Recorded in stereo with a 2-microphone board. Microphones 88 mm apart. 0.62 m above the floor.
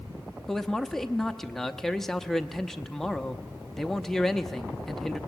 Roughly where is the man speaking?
Centre.